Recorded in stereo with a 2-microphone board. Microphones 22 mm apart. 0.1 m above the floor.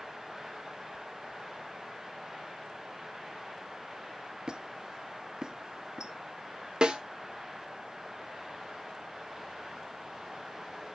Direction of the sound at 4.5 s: 35° right (ahead or behind).